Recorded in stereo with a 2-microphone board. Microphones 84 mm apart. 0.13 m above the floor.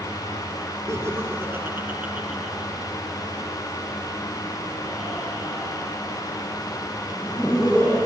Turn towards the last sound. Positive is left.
turn(degrees=10)  # may be behind; listen again after turning